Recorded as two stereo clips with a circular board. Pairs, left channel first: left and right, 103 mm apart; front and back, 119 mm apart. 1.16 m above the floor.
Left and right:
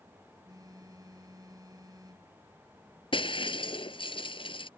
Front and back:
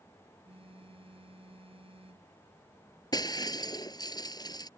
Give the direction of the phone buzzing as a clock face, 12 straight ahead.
5 o'clock.